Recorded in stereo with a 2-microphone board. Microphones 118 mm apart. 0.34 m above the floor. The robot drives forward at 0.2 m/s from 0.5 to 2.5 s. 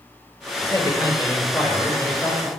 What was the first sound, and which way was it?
A man speaking, 30° left (ahead or behind).